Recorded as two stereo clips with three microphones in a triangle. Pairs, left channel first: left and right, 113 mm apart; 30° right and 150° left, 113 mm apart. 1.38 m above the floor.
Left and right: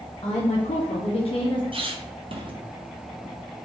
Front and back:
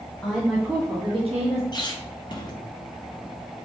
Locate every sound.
0.2 s a woman speaking: 45° left, 0.6 m; by 1.6 s 135° left, 0.8 m
1.7 s a squeak: 70° right, 0.5 m